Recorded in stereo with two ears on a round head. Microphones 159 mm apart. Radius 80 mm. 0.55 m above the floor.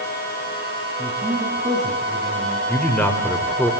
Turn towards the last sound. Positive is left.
turn(degrees=10)  # may be behind; listen again after turning